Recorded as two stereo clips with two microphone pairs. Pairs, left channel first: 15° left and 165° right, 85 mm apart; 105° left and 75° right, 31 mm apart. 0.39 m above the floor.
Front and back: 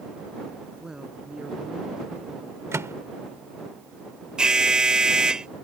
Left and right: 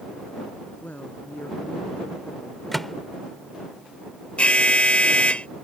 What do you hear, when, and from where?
0.8 s a woman speaking: 110° left
2.7 s a microwave: straight behind
4.4 s an alarm: 115° left